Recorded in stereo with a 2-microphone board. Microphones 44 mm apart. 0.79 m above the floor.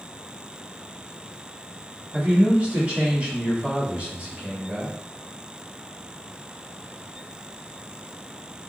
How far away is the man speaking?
About 1.5 m.